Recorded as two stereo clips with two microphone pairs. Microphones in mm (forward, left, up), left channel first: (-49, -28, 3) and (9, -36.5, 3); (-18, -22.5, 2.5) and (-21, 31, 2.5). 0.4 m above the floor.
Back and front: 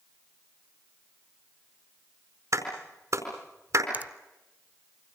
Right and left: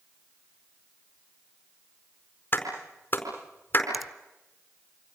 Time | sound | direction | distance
2.5 | a clap | 35° right | 4.5 m
3.9 | a finger snap | 5° left | 0.6 m